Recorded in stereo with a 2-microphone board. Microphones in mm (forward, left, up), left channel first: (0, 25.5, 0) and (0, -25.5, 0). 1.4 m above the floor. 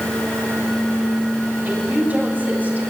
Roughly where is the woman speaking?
Right.